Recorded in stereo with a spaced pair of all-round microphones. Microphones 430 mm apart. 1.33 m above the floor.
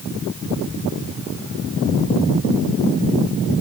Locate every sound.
Only background noise.